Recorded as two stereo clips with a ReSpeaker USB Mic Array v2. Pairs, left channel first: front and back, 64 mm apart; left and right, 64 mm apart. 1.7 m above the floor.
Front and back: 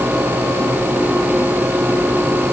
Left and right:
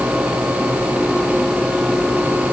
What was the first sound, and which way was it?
Only background noise.